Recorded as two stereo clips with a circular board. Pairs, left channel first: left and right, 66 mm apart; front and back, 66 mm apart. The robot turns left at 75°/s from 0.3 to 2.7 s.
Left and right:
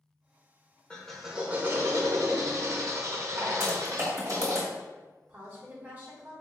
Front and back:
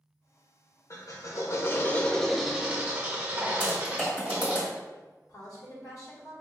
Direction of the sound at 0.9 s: 20° left.